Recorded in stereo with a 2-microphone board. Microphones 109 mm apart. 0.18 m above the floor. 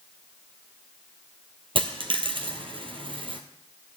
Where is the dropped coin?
55° right (ahead or behind), 1.3 m.